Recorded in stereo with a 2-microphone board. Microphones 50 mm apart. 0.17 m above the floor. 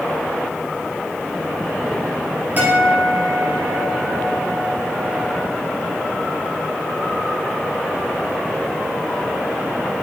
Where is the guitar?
35° right (ahead or behind), 2.5 m.